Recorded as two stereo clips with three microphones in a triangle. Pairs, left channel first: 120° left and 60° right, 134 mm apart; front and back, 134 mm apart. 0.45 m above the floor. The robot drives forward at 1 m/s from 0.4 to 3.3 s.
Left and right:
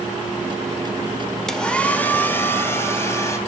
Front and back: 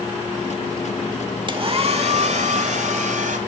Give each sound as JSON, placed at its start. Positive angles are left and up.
{"t": 1.5, "sound": "a hair dryer", "azimuth_deg": -155, "distance_m": 1.1}